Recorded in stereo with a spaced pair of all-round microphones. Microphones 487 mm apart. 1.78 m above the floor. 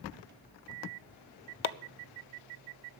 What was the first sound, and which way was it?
Chopping, 75° left (ahead or behind).